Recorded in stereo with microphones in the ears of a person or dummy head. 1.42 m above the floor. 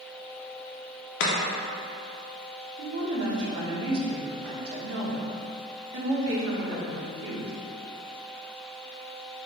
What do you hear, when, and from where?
1.2 s chopping: 65° left (ahead or behind), 0.6 m
2.8 s a woman speaking: 75° right (ahead or behind), 1.0 m